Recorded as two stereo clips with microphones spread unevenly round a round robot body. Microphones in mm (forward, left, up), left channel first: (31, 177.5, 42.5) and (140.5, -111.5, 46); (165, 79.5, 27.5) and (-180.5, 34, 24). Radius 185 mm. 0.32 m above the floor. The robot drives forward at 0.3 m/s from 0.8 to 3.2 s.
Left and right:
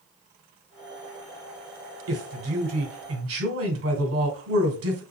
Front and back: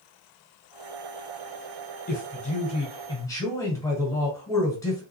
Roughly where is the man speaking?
Ahead right.